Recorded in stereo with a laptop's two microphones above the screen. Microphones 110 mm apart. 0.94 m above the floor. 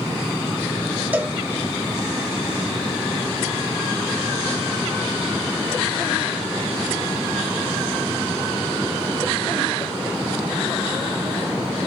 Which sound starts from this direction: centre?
A cowbell, at 1.1 s.